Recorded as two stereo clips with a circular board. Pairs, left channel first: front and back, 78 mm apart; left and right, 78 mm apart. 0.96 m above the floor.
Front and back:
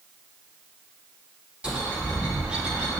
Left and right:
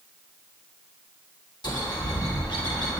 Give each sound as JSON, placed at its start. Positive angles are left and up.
{"t": 1.6, "sound": "a bird", "azimuth_deg": 100, "distance_m": 2.5}